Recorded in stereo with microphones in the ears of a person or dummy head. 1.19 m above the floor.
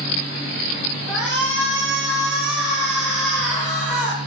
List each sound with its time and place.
1.1 s a shout: centre (ahead or behind), 2 m